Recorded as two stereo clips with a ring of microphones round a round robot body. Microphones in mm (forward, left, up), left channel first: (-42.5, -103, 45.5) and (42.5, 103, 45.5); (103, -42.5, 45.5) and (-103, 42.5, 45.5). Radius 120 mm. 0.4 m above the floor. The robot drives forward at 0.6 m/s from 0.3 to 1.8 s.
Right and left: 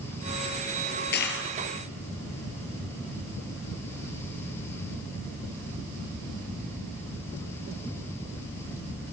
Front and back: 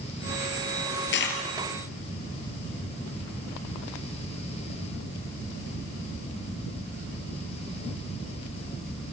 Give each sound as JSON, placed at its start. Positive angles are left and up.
{"t": 1.1, "sound": "a dropped coin", "azimuth_deg": -65, "distance_m": 3.0}